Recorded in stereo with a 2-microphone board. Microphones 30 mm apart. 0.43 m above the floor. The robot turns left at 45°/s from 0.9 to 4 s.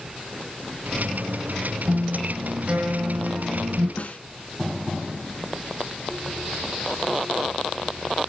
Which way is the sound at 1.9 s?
10° right.